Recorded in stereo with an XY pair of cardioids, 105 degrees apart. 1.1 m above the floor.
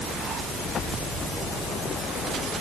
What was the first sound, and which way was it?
Only background noise.